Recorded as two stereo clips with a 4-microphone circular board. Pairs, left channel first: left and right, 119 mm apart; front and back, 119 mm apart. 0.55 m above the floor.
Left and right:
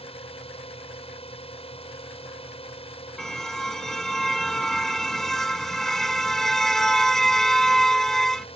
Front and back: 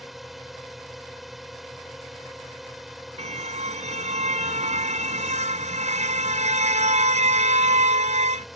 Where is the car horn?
175° left.